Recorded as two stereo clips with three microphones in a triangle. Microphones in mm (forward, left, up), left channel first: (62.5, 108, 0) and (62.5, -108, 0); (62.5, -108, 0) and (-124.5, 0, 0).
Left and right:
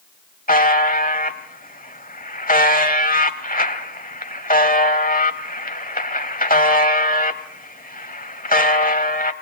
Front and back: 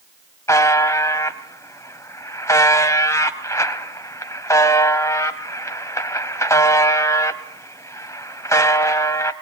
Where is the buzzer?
45° left, 1.0 m.